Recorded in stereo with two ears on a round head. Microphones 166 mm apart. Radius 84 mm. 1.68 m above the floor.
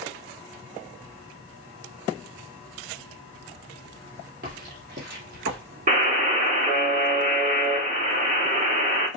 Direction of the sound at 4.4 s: 55° right (ahead or behind).